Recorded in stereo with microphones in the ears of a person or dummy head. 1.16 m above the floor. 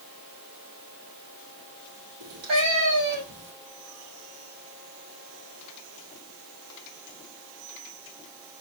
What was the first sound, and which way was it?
A cat meowing, 65° right (ahead or behind).